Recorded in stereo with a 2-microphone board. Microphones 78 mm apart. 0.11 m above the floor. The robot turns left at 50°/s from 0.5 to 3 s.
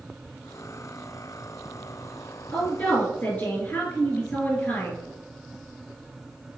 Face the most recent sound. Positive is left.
turn(degrees=30)  # may be behind; listen again after turning